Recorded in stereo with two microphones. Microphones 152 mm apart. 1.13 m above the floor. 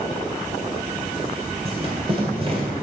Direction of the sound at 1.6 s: 40° right (ahead or behind).